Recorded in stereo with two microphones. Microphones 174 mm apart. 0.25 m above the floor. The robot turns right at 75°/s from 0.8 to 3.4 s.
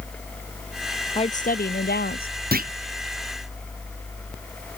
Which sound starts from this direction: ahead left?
A woman speaking, at 1.1 s.